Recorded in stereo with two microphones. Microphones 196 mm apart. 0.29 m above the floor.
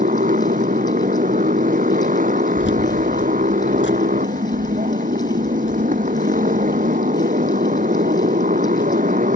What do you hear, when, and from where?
0.0 s a motorcycle: 40° right (ahead or behind)
2.6 s keys jangling: 65° left (ahead or behind)